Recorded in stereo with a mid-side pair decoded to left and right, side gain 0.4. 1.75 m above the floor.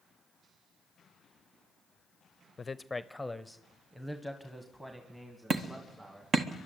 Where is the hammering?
50° right, 1.6 m.